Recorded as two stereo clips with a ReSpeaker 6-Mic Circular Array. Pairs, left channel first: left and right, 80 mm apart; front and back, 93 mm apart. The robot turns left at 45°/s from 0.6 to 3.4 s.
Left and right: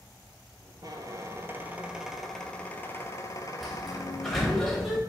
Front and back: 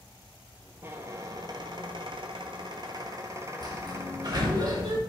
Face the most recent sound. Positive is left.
turn(degrees=175)